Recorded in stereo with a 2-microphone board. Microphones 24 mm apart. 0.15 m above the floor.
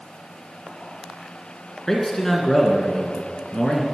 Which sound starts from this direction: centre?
A man speaking, at 1.9 s.